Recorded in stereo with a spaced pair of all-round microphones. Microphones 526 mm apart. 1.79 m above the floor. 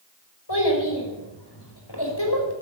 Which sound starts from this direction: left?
A child speaking, at 0.5 s.